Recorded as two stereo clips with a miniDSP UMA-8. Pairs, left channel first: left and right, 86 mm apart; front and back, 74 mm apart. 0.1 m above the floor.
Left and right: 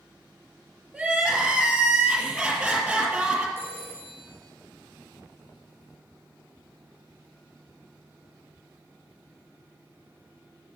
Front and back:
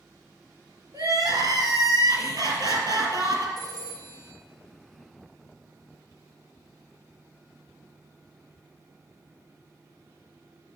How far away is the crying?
About 2.5 m.